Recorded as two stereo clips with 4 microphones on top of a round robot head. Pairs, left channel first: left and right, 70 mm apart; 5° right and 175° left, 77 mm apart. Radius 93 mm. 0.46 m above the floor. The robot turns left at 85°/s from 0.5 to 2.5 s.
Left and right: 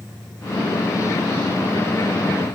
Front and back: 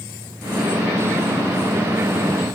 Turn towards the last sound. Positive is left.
No sound to turn to.